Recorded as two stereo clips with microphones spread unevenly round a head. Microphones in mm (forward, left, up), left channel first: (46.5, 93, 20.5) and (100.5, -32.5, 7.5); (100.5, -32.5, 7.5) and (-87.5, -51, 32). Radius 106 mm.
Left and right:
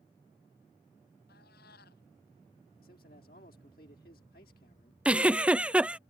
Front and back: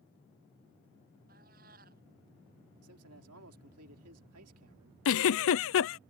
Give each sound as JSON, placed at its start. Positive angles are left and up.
{"t": 1.3, "sound": "a cat meowing", "azimuth_deg": 135}
{"t": 2.8, "sound": "a man speaking", "azimuth_deg": 165}
{"t": 5.0, "sound": "a giggle", "azimuth_deg": 15}